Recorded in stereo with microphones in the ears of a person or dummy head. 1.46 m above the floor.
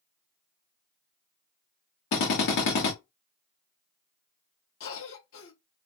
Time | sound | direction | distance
2.1 | a drill | 60° left (ahead or behind) | 1.8 m
4.8 | a cough | 70° left (ahead or behind) | 1.5 m